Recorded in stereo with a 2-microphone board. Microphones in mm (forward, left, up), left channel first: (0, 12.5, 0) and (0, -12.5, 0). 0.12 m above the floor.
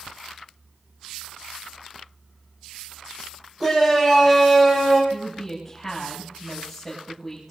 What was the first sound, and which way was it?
A shout, 20° right (ahead or behind).